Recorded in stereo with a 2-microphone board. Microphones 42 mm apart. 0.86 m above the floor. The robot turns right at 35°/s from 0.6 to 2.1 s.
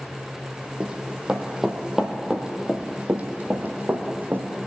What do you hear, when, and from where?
0.8 s running footsteps: 20° right (ahead or behind), 2 m; by 4.5 s 55° right (ahead or behind), 2.5 m